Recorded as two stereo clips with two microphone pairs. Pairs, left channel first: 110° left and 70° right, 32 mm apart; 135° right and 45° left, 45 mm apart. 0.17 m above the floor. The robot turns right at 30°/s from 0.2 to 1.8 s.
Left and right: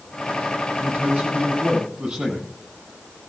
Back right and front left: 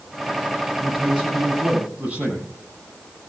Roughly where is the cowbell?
No cowbell in this recording.